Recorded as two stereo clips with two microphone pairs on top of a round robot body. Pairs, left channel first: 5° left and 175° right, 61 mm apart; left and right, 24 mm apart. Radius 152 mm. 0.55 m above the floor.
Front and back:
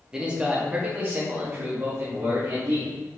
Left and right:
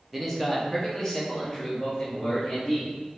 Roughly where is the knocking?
I don't hear knocking.